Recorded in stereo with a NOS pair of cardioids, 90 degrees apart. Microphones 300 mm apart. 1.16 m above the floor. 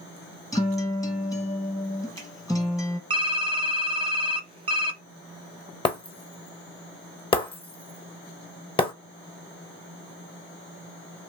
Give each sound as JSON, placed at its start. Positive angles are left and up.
{"t": 0.5, "sound": "a guitar", "azimuth_deg": 10, "distance_m": 1.1}
{"t": 3.1, "sound": "typing on a keyboard", "azimuth_deg": -20, "distance_m": 0.6}
{"t": 5.8, "sound": "breaking glass", "azimuth_deg": 20, "distance_m": 0.9}